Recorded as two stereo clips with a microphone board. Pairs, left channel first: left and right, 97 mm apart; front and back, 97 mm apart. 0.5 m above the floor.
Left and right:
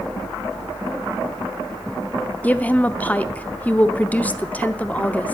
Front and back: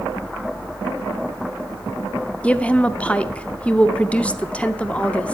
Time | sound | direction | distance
2.4 | a woman speaking | 50° left | 0.6 m